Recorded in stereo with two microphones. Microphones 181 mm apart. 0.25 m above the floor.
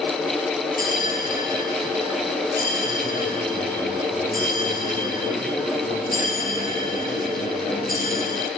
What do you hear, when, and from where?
0.8 s a bell: 55° left (ahead or behind), 3 m